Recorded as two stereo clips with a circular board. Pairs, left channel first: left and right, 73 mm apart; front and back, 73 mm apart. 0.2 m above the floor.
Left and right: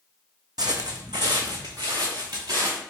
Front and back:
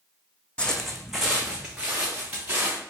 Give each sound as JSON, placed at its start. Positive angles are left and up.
{"t": 0.6, "sound": "footsteps", "azimuth_deg": -75, "distance_m": 0.6}